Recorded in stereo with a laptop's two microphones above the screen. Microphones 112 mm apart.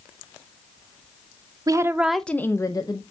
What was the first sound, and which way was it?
A woman speaking, 35° right (ahead or behind).